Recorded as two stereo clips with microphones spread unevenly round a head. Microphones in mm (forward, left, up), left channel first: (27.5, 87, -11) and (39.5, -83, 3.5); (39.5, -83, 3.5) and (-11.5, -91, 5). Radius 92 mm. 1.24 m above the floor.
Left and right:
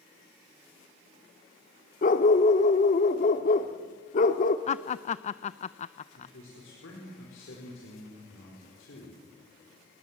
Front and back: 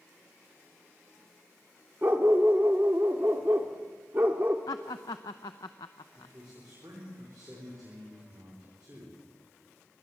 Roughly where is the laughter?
Ahead left.